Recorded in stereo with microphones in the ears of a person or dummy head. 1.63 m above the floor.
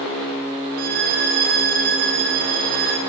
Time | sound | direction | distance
0.8 | a violin | 60° right (ahead or behind) | 4 m